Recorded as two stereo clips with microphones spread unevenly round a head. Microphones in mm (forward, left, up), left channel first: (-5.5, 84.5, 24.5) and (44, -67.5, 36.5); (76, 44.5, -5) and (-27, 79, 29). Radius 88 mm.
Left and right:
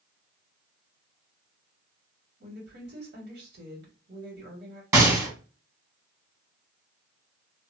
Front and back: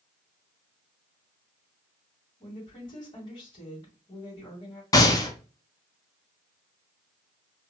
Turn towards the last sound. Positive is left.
turn(degrees=0)